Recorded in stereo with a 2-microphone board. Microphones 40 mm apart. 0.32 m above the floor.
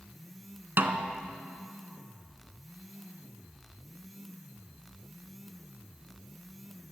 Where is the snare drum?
60° right (ahead or behind), 0.6 m.